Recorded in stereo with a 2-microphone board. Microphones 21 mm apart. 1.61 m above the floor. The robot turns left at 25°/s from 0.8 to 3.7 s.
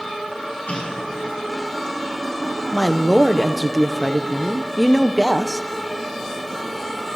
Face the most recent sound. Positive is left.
turn(degrees=-5)  # may be behind; listen again after turning